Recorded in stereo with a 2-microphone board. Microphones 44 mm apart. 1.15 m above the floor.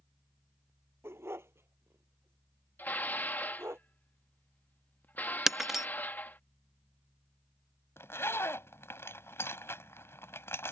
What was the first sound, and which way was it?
A dog barking, 70° right (ahead or behind).